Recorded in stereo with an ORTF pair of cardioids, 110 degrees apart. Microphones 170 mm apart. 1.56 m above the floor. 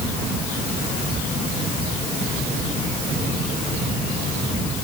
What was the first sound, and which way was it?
Only background noise.